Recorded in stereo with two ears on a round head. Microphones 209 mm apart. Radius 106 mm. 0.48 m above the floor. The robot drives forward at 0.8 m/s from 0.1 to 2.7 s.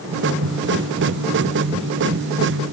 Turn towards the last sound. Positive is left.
No sound to turn to.